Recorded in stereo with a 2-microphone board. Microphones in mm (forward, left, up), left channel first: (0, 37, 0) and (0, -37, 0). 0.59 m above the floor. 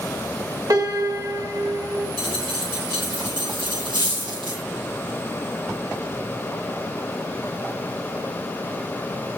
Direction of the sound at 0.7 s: 55° right (ahead or behind).